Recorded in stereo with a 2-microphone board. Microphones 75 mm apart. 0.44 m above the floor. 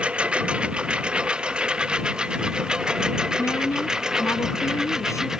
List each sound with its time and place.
0.0 s a lawn mower: 15° right (ahead or behind); by 5.4 s 5° right (ahead or behind)
3.4 s a woman speaking: 45° left (ahead or behind)